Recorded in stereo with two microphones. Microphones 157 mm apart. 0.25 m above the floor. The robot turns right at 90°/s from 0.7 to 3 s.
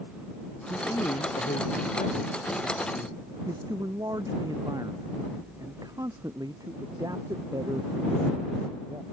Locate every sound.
0.7 s a man speaking: 5° right; by 9.0 s 155° right